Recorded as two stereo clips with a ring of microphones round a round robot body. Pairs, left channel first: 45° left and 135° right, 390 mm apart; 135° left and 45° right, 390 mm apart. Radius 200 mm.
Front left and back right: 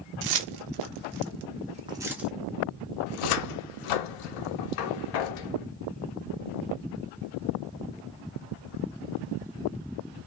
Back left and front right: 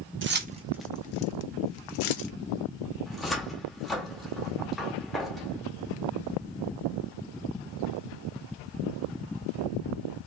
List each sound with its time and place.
0.2 s keys jangling: 105° right, 0.8 m; by 2.3 s 135° left, 1.0 m
3.1 s a cupboard door: 45° left, 0.6 m